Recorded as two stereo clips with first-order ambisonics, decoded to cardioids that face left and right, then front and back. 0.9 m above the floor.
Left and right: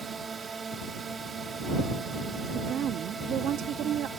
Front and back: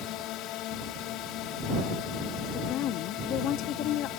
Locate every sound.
0.0 s a drone: 20° right
2.5 s a woman speaking: 40° right